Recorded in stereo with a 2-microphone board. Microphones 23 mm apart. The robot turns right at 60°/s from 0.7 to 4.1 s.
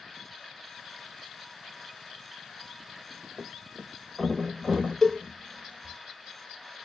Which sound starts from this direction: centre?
A cowbell, at 5.0 s.